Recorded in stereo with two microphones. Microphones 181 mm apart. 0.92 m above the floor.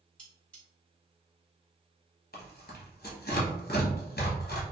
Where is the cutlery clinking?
5° left (ahead or behind), 1.4 m.